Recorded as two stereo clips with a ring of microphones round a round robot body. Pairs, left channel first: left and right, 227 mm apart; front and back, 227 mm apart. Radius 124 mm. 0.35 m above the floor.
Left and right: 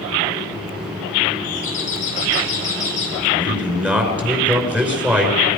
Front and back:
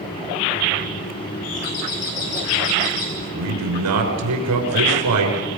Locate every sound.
1.4 s a doorbell: 25° left, 6.5 m
3.2 s a man speaking: 175° right, 5.5 m